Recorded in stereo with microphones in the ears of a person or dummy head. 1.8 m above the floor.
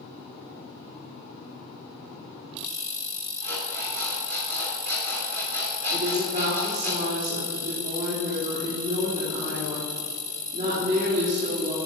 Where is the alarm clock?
55° right (ahead or behind), 3.5 m.